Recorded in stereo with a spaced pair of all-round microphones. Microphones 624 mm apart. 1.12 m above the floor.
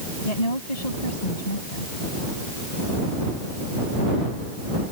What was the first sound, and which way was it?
A woman speaking, 80° left.